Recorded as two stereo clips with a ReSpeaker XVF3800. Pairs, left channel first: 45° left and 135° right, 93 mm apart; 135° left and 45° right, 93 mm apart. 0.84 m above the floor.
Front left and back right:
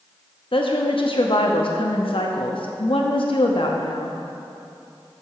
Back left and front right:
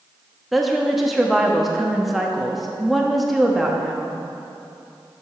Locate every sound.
0.5 s a woman speaking: 45° left, 0.9 m